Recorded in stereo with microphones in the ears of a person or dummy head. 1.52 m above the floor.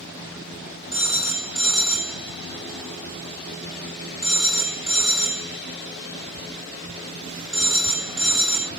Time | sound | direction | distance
0.9 | a phone ringing | centre (ahead or behind) | 2 m